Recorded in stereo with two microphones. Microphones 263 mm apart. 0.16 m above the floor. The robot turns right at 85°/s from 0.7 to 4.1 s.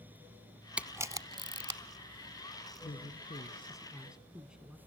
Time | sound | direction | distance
0.8 | a camera shutter | 5° right (ahead or behind) | 0.8 m
2.8 | a man speaking | 75° left | 1.3 m